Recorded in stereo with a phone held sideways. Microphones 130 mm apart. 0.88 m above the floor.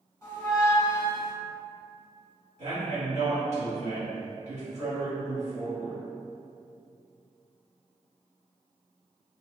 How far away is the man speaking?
About 1.7 m.